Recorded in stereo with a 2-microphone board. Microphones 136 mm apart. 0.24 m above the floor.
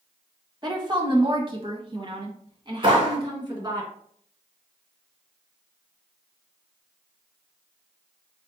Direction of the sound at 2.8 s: 40° right (ahead or behind).